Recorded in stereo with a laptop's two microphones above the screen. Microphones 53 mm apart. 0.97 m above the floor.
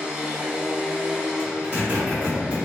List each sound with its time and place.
0.0 s a machine running: 20° right (ahead or behind), 0.8 m
1.4 s a zipper: 25° right (ahead or behind), 1.7 m